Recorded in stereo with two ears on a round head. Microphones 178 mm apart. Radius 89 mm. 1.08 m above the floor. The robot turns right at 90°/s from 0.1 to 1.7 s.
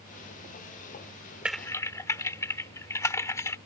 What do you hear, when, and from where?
1.4 s typing on a keyboard: 5° right (ahead or behind); by 3.6 s 15° left (ahead or behind)